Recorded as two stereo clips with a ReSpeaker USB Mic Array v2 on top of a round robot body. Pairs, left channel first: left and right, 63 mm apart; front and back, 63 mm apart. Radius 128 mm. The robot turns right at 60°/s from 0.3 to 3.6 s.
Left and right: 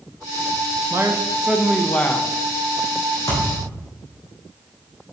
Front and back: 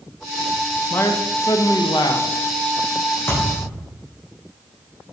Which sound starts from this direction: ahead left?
A thud, at 3.3 s.